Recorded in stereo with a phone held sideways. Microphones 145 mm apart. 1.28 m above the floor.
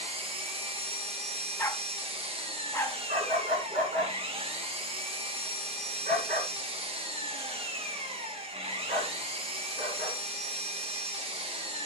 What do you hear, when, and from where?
0.0 s an engine running: 40° right (ahead or behind), 1.1 m
1.6 s a dog barking: 15° left (ahead or behind), 0.7 m
3.1 s a dog barking: 65° right (ahead or behind), 3 m